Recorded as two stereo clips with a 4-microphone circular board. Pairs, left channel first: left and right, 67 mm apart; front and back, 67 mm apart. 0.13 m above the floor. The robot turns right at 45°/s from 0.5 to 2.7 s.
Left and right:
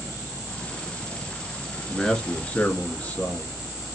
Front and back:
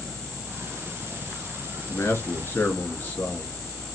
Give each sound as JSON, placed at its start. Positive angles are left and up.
{"t": 1.9, "sound": "a man speaking", "azimuth_deg": 5, "distance_m": 1.4}